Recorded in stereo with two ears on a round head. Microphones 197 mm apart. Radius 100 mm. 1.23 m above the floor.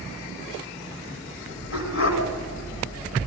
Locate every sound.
1.7 s a dog barking: 60° left (ahead or behind), 3 m